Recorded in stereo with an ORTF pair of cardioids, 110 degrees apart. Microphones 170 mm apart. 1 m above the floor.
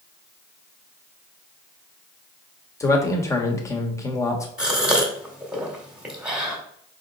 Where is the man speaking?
15° left, 1.3 m.